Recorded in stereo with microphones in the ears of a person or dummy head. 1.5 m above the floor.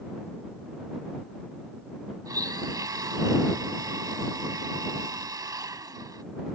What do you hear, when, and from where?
2.2 s a blender: 20° right (ahead or behind)